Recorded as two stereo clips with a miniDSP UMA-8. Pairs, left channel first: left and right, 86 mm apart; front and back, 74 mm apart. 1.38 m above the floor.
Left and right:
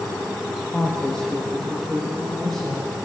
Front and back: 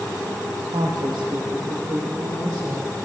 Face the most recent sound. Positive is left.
turn(degrees=175)